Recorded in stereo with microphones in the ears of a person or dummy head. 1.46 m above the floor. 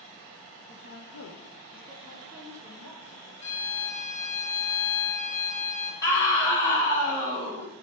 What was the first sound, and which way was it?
A woman speaking, 55° left (ahead or behind).